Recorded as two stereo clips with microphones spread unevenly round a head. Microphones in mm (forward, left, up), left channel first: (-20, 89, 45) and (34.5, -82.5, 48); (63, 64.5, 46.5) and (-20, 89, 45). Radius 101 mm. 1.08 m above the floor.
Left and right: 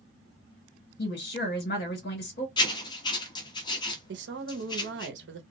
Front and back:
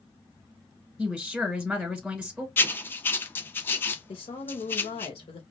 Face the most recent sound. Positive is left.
turn(degrees=-50)